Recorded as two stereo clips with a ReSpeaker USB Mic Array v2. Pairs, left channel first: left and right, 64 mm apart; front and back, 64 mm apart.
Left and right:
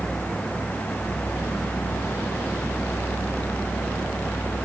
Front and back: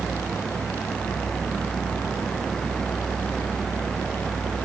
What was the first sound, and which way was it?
Only background noise.